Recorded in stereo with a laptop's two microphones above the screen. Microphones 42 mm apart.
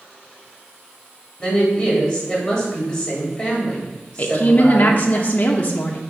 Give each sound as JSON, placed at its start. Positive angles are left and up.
{"t": 1.4, "sound": "a woman speaking", "side_deg": 0, "distance_m": 2.5}
{"t": 4.2, "sound": "a woman speaking", "side_deg": 40, "distance_m": 0.7}